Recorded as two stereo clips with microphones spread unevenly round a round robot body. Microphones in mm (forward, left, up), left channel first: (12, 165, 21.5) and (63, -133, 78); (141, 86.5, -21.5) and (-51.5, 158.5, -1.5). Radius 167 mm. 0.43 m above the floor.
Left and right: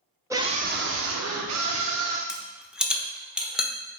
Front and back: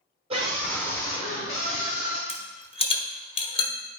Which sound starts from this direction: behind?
A scream, at 0.3 s.